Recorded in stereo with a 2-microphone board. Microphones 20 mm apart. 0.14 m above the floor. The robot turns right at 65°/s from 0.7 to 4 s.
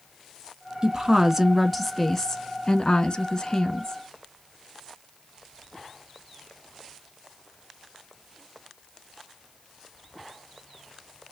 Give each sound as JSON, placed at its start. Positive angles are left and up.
{"t": 0.8, "sound": "a woman speaking", "azimuth_deg": -60, "distance_m": 1.3}